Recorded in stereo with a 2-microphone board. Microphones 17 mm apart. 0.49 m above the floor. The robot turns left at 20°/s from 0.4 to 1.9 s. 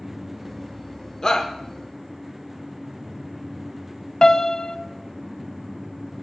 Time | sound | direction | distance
1.2 | a shout | 35° left (ahead or behind) | 1.1 m
4.2 | a piano | 35° left (ahead or behind) | 0.6 m